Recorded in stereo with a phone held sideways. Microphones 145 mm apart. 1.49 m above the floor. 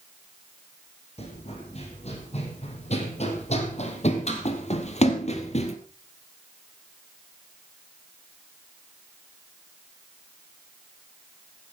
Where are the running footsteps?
45° left (ahead or behind), 4.5 m; by 5.8 s 50° left (ahead or behind), 2 m.